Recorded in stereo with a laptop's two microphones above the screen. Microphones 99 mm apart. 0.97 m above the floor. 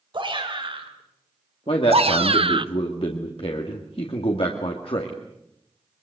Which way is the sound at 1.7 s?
70° left (ahead or behind).